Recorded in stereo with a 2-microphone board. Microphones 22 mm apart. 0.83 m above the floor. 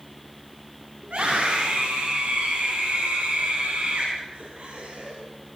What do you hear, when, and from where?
1.0 s a scream: 85° right, 8 m